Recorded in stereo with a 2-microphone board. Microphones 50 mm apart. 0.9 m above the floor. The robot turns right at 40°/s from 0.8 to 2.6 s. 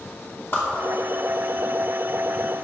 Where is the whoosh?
45° left (ahead or behind), 2.5 m.